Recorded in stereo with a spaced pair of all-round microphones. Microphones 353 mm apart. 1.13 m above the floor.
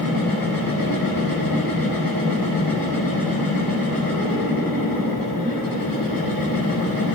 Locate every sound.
0.0 s a machine running: 75° left (ahead or behind), 8.5 m